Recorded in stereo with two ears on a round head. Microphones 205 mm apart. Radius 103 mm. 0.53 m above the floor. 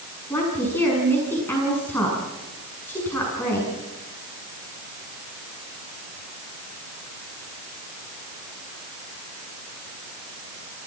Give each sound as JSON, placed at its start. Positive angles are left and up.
{"t": 0.3, "sound": "a woman speaking", "side_deg": 10, "distance_m": 6.5}